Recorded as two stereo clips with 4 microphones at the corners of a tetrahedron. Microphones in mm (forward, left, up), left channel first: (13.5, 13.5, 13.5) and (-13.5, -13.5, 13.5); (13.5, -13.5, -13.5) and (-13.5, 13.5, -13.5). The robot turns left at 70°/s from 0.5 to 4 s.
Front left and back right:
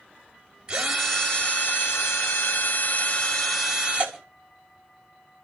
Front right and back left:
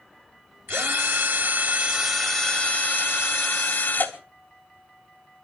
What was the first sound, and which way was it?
A drill, 155° left.